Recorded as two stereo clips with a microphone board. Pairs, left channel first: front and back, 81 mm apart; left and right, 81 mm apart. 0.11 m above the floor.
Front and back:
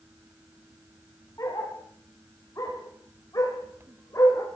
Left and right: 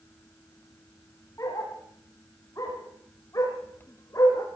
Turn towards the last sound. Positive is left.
turn(degrees=45)